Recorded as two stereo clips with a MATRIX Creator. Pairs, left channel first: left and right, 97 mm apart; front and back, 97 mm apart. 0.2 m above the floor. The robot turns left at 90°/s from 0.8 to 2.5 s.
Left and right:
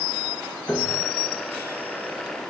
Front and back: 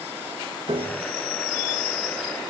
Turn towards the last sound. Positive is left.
turn(degrees=20)